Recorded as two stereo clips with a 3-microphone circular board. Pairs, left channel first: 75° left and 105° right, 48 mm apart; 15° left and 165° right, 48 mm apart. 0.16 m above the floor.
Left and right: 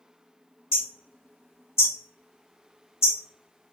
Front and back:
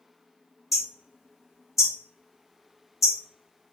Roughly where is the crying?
No crying in this recording.